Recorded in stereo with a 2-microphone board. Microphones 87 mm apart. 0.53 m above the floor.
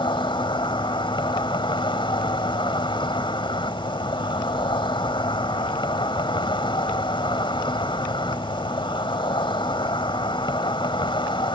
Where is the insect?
70° left (ahead or behind).